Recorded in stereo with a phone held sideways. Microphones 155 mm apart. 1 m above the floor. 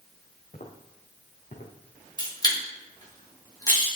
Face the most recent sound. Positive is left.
turn(degrees=25)  # may be behind; listen again after turning